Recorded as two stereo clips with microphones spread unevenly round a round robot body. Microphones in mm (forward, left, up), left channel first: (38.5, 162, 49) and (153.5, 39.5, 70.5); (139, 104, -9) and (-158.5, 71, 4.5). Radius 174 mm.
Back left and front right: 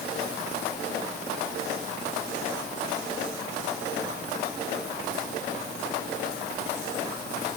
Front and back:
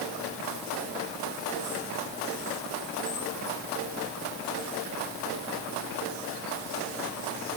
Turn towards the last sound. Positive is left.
No sound to turn to.